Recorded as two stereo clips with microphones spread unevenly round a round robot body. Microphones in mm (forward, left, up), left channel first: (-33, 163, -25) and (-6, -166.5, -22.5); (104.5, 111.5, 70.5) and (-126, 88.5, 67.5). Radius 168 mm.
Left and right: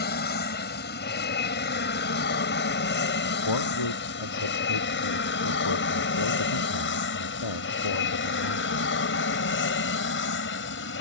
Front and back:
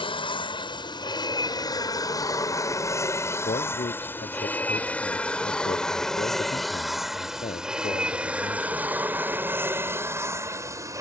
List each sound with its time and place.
0.0 s an aircraft: 60° left; by 11.0 s 120° left
3.5 s a man speaking: 65° left